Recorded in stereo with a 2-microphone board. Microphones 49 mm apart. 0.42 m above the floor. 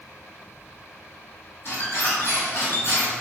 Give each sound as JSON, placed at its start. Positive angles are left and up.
{"t": 1.6, "sound": "a squeak", "side_deg": 50, "distance_m": 1.8}